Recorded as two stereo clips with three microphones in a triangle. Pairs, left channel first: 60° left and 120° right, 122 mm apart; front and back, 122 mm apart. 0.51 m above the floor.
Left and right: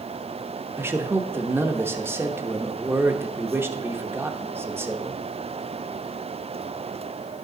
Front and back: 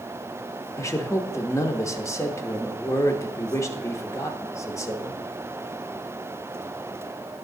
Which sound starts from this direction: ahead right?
A man speaking, at 0.8 s.